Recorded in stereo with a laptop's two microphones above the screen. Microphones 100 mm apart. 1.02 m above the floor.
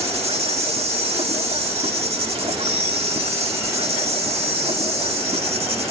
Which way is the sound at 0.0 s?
80° right.